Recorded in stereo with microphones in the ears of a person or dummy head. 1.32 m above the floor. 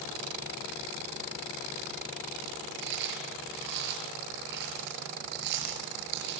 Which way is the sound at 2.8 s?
55° right (ahead or behind).